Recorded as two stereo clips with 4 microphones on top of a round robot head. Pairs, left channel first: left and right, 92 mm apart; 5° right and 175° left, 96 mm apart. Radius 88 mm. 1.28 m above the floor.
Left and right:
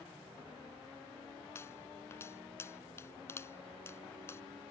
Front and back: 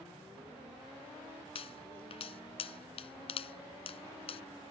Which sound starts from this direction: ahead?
A pop, at 1.6 s.